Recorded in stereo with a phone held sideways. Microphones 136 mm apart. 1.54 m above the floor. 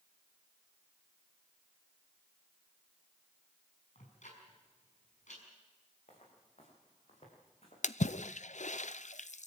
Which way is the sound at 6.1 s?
60° left (ahead or behind).